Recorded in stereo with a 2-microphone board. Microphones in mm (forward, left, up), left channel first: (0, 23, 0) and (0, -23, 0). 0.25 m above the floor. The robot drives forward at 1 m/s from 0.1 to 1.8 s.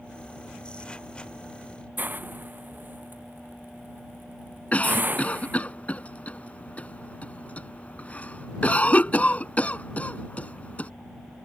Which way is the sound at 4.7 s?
35° left (ahead or behind).